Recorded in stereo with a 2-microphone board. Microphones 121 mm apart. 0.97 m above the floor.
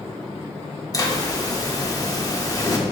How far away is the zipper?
About 1.2 m.